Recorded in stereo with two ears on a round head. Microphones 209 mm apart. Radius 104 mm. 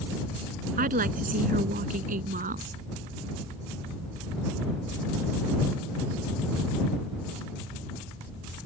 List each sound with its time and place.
0.8 s a woman speaking: 40° right (ahead or behind)